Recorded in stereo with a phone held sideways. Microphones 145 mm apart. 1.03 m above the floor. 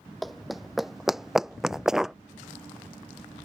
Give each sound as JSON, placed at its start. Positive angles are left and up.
{"t": 0.2, "sound": "running footsteps", "side_deg": 0}